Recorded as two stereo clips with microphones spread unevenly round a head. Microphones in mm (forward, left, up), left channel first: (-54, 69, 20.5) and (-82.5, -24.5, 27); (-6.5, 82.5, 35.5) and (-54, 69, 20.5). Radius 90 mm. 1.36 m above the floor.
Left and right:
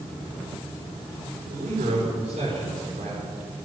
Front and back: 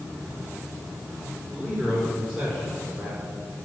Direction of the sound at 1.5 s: 70° right.